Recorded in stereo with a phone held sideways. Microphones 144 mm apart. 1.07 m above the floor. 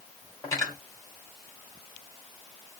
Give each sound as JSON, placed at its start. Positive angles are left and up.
{"t": 0.4, "sound": "cutlery clinking", "side_deg": 20, "distance_m": 2.0}